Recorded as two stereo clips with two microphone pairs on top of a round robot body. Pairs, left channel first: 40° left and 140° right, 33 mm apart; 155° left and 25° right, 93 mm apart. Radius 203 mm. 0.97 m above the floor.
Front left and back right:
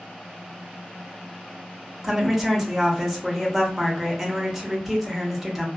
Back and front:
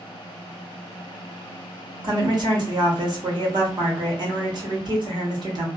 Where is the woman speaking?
60° right, 1.2 m.